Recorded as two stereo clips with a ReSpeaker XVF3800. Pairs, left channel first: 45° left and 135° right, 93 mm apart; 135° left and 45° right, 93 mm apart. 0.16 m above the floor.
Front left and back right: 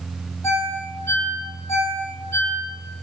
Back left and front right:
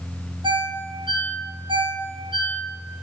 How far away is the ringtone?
About 4 m.